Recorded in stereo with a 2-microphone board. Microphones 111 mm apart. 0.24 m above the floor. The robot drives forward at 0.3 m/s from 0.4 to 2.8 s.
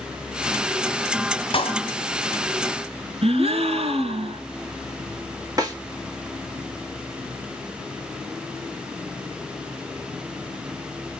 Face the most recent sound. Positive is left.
turn(degrees=-35)  # may be behind; listen again after turning